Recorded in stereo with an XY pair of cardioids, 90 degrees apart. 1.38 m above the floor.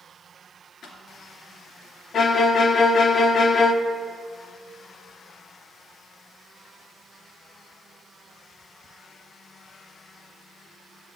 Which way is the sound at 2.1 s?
55° left.